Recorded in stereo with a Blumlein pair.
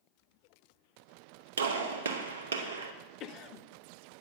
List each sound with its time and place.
1.6 s a gunshot: 65° right, 1.0 m
3.2 s a cough: 35° left, 0.6 m